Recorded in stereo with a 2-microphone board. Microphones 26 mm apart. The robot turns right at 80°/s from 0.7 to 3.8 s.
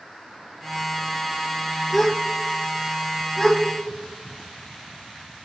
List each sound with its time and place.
1.9 s a gasp: centre (ahead or behind), 0.7 m; by 2.1 s 20° left (ahead or behind), 0.7 m
3.4 s a gasp: 30° left (ahead or behind), 1.7 m; by 3.6 s 15° left (ahead or behind), 1.7 m